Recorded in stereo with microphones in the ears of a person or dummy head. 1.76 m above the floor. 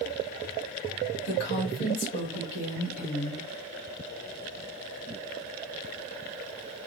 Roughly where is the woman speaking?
Left.